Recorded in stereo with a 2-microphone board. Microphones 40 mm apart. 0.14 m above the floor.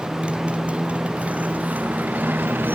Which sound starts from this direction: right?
A motorcycle, at 0.0 s.